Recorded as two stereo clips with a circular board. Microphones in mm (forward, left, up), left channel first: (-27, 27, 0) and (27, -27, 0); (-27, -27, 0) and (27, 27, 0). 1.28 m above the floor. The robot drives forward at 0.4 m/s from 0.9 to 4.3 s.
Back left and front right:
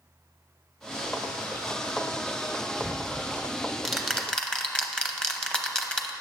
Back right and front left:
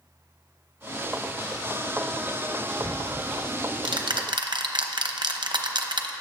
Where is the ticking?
30° left, 1.3 m; by 6.1 s 55° left, 0.8 m.